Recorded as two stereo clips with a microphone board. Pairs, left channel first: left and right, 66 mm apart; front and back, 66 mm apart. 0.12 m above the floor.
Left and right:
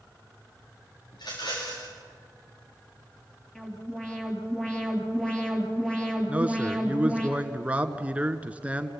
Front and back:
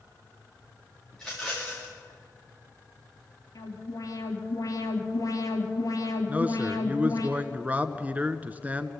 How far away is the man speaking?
About 1.2 m.